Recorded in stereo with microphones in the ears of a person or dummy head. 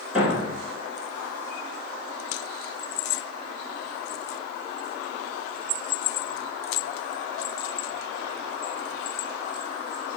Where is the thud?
10° right (ahead or behind), 2.0 m.